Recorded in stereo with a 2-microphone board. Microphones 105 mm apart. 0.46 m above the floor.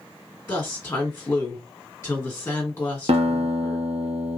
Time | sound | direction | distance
0.5 | a woman speaking | 20° left (ahead or behind) | 1.3 m
3.1 | a guitar | 75° right (ahead or behind) | 0.9 m